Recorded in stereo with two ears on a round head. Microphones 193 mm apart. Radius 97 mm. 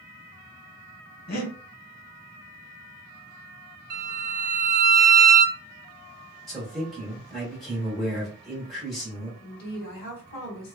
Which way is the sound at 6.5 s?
Centre (ahead or behind).